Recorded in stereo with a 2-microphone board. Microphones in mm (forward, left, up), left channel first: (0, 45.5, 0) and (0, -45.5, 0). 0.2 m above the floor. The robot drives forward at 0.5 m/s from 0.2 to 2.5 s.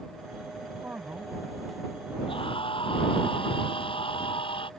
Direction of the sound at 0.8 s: 20° right (ahead or behind).